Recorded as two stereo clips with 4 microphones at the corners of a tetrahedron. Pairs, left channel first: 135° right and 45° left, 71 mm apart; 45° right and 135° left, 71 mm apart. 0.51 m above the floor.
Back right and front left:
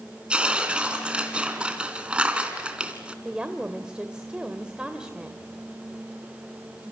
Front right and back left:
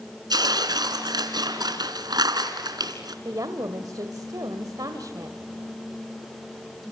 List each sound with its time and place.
0.3 s tearing paper: 120° left, 3 m
3.2 s a woman speaking: 120° left, 1.9 m